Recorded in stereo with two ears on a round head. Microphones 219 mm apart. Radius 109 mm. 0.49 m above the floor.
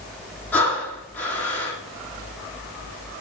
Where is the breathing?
10° left (ahead or behind), 6.5 m.